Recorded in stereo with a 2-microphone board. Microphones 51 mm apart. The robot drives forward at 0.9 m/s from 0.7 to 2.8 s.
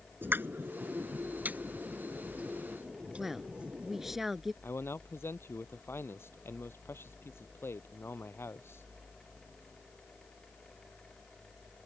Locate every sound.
0.2 s a pop: 45° right (ahead or behind); by 4.2 s 25° right (ahead or behind)
3.2 s a woman speaking: 5° right (ahead or behind)
4.6 s a man speaking: 55° left (ahead or behind)